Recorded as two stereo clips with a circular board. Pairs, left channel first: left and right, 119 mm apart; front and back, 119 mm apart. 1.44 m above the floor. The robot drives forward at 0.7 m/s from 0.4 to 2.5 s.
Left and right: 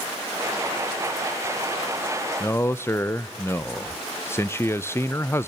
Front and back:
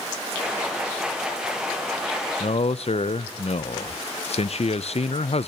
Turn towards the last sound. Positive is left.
turn(degrees=25)